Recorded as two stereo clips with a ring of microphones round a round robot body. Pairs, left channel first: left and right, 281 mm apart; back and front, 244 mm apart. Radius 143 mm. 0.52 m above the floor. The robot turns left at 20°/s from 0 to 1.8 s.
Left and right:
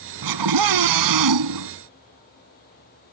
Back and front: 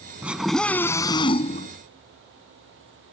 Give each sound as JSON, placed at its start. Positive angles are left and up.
{"t": 0.2, "sound": "a scream", "azimuth_deg": -85}